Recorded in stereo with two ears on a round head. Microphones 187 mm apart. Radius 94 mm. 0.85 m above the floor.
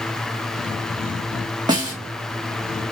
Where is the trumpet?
I don't hear a trumpet.